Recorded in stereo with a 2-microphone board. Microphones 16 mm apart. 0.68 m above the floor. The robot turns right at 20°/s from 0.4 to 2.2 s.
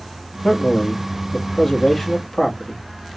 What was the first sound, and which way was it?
A man speaking, 135° left.